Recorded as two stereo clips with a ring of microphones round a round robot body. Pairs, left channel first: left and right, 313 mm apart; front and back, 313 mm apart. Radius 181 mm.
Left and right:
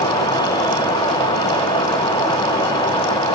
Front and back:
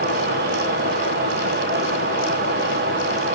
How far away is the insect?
About 0.8 m.